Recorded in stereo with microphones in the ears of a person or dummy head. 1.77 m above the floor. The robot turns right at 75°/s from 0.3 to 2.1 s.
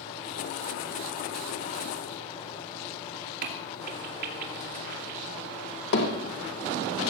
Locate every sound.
3.4 s a crack: 55° right (ahead or behind), 2.5 m
5.9 s hammering: 60° left (ahead or behind), 2 m